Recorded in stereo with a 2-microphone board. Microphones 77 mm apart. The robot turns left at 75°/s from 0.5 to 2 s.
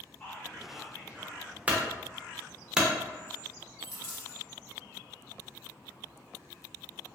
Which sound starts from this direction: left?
A dropped coin, at 3.8 s.